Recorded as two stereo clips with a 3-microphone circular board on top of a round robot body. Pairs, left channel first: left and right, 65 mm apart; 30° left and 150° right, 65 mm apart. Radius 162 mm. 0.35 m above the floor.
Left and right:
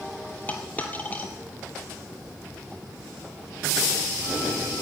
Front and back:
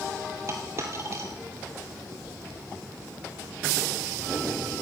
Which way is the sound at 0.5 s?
155° left.